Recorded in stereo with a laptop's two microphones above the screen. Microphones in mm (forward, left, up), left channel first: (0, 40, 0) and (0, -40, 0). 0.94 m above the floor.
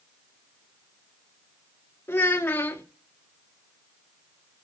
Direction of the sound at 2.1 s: 30° left (ahead or behind).